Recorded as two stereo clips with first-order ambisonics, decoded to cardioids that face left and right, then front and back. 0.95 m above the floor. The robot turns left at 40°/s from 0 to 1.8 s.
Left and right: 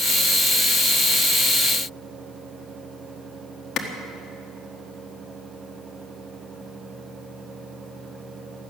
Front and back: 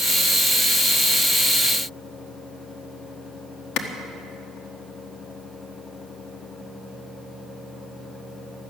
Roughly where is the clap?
Ahead left.